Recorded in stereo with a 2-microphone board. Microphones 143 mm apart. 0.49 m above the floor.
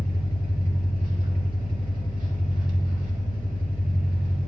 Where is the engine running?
75° right (ahead or behind), 0.9 m.